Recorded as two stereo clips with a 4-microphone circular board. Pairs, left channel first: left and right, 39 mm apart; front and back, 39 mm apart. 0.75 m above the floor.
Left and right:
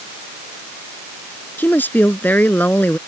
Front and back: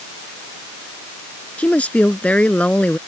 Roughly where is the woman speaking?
Ahead left.